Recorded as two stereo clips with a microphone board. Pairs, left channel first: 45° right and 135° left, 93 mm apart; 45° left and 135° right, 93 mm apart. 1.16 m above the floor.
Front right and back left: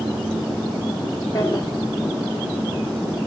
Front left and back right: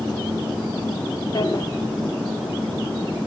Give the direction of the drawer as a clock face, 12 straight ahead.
12 o'clock.